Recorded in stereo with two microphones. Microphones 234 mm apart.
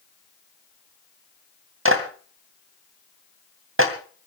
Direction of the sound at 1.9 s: 65° right (ahead or behind).